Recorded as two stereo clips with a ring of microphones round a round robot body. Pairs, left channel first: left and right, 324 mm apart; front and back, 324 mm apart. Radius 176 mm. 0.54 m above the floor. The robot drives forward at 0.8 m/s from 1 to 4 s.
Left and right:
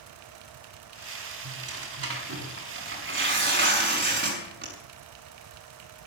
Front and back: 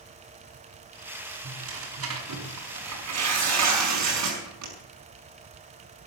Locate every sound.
1.4 s tearing paper: 130° right, 5 m; by 4.7 s 145° right, 6.5 m